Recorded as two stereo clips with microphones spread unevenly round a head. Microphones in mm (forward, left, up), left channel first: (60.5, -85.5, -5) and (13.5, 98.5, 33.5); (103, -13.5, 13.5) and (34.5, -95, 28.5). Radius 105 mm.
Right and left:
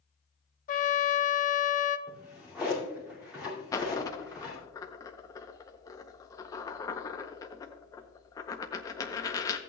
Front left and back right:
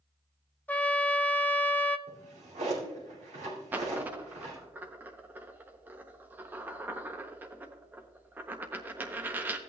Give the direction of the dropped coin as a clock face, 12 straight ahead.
5 o'clock.